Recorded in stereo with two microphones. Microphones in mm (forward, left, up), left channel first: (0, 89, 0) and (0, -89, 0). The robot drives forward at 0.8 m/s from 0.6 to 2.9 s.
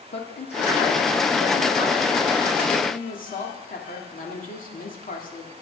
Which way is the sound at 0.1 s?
65° left (ahead or behind).